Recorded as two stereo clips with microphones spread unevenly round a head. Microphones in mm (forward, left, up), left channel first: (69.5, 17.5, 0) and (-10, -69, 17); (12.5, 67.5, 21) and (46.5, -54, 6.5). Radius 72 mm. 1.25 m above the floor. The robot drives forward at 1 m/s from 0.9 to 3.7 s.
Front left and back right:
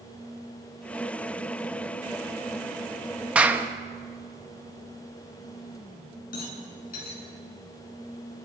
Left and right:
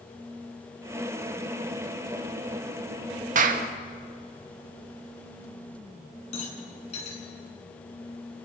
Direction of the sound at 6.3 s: 70° left.